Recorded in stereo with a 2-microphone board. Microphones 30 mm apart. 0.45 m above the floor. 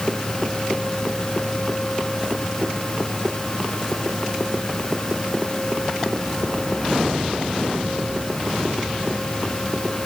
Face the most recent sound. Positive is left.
No sound to turn to.